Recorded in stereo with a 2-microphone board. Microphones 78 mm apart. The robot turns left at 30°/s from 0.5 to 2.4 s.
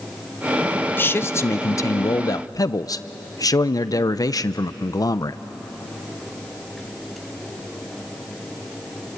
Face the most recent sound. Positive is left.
turn(degrees=100)